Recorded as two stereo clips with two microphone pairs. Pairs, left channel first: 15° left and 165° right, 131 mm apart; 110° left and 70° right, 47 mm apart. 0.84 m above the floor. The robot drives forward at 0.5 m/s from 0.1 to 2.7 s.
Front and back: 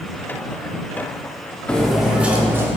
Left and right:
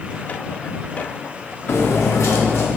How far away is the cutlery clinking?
About 0.9 m.